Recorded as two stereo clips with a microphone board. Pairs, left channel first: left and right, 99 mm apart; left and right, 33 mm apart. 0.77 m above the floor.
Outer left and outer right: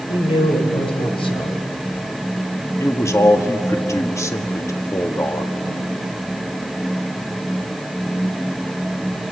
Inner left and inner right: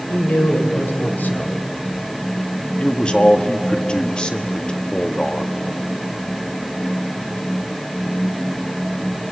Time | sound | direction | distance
0.1 | a man speaking | 60° left (ahead or behind) | 3 m
2.8 | a man speaking | 30° left (ahead or behind) | 1.6 m